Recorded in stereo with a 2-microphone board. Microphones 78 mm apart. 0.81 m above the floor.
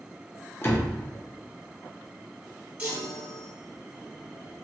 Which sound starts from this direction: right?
A chime, at 2.8 s.